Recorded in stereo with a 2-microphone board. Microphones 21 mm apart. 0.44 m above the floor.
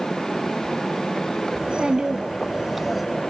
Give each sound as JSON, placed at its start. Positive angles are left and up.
{"t": 1.6, "sound": "a child speaking", "side_deg": -60, "distance_m": 2.5}